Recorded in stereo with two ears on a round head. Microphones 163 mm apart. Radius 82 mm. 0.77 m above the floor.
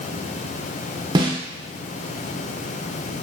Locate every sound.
1.1 s a snare drum: 25° right (ahead or behind), 0.7 m